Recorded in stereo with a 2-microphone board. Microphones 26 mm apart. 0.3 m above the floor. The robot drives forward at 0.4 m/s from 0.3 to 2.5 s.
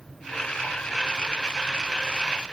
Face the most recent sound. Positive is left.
No sound to turn to.